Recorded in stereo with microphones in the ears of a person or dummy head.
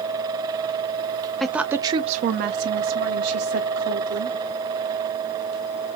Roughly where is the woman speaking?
Centre.